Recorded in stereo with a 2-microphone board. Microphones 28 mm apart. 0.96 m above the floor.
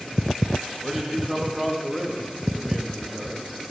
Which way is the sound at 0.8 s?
5° right (ahead or behind).